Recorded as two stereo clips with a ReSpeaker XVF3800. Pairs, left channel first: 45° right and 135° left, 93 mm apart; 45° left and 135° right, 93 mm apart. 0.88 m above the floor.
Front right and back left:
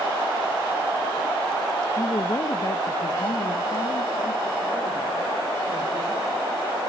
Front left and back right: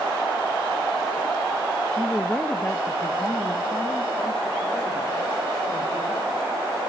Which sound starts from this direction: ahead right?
A woman speaking, at 2.0 s.